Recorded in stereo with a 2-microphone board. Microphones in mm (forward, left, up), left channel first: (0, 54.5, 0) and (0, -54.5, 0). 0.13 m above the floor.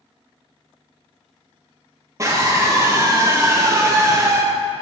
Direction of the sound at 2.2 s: 25° right (ahead or behind).